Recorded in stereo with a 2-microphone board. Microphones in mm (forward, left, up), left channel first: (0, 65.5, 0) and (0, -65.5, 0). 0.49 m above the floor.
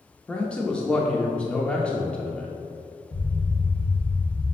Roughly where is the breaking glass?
I don't hear breaking glass.